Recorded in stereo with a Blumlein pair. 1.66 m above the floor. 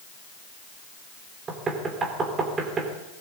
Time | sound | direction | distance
1.5 | knocking | 20° right | 3 m